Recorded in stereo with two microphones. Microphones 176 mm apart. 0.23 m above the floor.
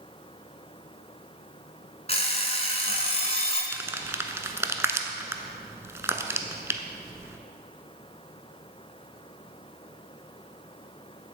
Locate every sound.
2.1 s an alarm clock: 35° left (ahead or behind), 1.1 m
3.7 s crumpling: 15° right (ahead or behind), 0.6 m